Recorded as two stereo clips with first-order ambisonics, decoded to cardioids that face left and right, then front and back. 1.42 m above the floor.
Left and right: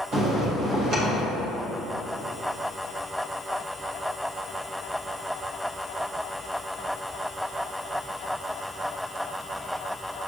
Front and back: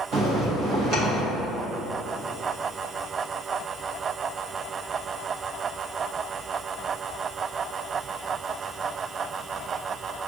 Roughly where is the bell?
Behind right.